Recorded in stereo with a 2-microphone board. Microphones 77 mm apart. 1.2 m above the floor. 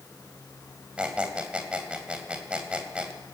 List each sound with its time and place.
1.0 s a squeak: 15° right (ahead or behind), 3 m